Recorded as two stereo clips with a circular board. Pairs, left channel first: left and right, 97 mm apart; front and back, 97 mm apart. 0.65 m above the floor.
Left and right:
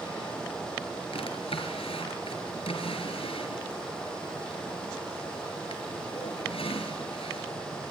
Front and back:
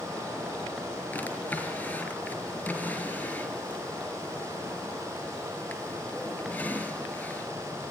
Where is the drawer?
70° left, 5 m.